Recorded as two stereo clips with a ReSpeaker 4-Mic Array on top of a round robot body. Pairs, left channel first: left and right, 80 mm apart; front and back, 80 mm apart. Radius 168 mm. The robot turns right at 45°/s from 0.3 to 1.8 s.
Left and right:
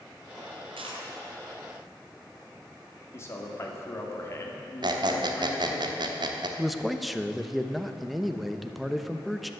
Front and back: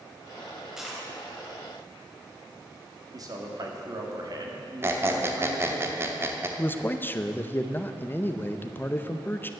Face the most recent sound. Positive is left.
turn(degrees=0)